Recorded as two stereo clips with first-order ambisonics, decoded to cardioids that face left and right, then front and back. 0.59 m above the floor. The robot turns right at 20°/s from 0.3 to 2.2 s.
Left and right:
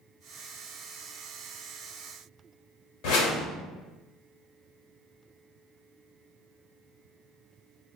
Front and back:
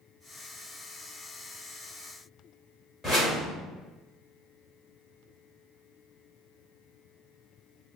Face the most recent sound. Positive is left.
turn(degrees=75)